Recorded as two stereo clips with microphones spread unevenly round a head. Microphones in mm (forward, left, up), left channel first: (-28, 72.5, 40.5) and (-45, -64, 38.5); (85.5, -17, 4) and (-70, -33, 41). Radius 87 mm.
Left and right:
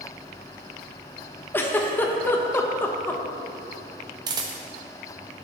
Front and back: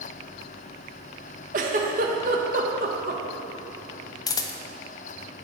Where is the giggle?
155° left, 1.0 m.